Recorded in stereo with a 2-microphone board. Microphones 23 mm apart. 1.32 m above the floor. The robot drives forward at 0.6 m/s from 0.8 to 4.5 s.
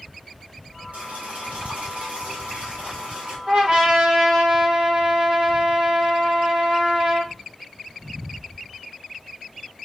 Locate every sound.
0.9 s boiling: 85° right, 2.5 m; by 3.4 s 60° right (ahead or behind), 3 m
3.5 s a trumpet: 45° right (ahead or behind), 3.5 m; by 7.3 s 35° right (ahead or behind), 4 m